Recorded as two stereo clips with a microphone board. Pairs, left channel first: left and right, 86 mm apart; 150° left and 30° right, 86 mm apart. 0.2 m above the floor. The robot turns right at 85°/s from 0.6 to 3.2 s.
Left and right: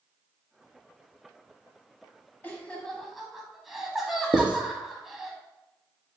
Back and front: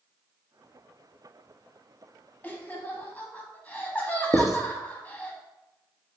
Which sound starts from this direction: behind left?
Laughter, at 2.4 s.